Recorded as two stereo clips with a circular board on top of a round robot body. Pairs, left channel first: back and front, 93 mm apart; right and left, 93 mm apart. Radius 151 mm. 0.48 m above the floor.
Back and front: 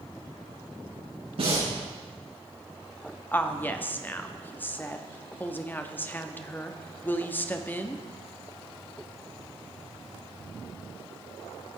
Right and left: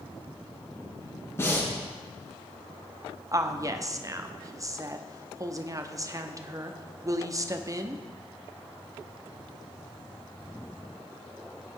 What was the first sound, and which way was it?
Breathing, 25° right.